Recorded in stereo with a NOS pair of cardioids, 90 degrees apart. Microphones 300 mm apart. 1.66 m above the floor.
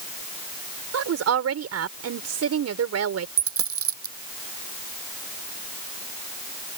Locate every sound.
0.9 s a woman speaking: 55° right
3.4 s a dropped coin: 50° right